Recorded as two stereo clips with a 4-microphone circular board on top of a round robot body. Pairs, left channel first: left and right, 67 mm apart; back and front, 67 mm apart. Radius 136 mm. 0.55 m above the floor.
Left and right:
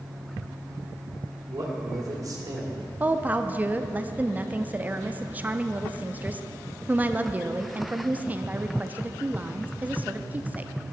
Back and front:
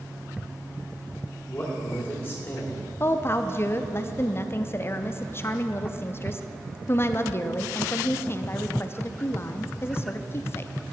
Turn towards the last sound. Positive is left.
turn(degrees=-145)